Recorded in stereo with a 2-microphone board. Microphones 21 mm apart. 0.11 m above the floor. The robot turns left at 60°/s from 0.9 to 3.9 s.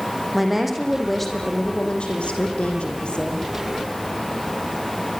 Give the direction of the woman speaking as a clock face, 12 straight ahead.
6 o'clock.